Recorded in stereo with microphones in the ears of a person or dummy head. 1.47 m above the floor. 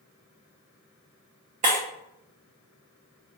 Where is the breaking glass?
35° right (ahead or behind), 0.6 m.